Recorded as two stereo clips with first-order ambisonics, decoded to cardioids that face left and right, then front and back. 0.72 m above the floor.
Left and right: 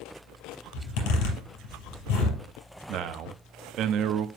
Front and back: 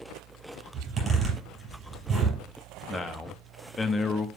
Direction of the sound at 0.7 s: 110° left.